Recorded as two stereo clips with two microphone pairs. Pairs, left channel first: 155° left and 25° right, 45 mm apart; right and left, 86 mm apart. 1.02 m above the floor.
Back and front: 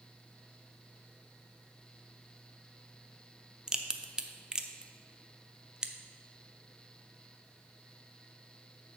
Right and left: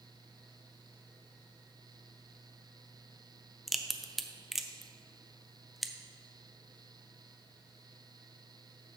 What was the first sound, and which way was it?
A crack, 10° left.